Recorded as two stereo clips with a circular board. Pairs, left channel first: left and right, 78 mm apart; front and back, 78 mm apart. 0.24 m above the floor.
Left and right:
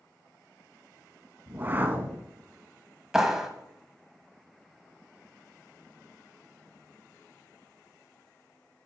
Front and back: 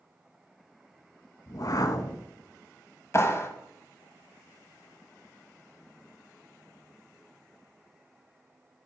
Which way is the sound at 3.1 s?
10° right.